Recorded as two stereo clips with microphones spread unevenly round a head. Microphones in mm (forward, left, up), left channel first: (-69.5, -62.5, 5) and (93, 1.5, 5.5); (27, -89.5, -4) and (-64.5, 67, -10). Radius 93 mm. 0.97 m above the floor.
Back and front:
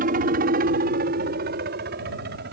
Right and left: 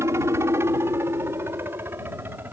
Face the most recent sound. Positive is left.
turn(degrees=40)